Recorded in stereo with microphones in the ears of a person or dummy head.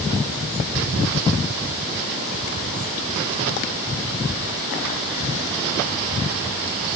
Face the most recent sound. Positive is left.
No sound to turn to.